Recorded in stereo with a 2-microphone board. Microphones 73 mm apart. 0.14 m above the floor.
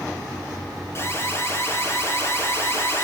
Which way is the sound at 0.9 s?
35° left (ahead or behind).